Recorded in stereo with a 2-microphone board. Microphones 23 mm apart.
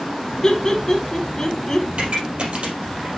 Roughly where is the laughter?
Left.